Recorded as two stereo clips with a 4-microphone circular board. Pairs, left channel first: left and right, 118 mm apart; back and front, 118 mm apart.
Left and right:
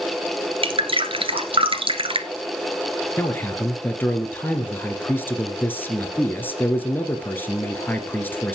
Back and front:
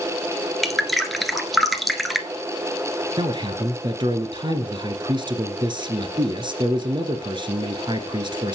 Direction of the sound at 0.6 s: 90° right.